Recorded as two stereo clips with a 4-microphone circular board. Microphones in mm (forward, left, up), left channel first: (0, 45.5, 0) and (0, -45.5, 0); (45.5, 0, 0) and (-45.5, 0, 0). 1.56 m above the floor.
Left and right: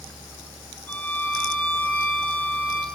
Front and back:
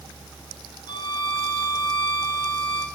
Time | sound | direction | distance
0.9 | a violin | 20° left | 1.8 m